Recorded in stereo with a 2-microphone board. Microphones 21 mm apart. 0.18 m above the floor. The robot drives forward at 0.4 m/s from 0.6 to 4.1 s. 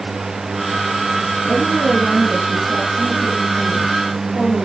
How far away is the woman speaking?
About 5.5 m.